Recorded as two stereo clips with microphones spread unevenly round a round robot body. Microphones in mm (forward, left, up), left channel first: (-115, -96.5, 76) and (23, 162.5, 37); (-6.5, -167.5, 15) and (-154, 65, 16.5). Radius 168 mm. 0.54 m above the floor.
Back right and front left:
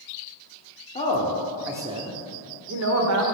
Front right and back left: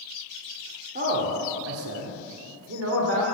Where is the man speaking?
175° left, 1.4 m; by 3.2 s 75° left, 1.8 m.